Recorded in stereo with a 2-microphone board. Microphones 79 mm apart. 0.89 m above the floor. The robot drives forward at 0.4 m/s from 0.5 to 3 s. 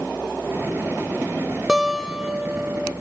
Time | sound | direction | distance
1.7 | a guitar | 10° right (ahead or behind) | 1.0 m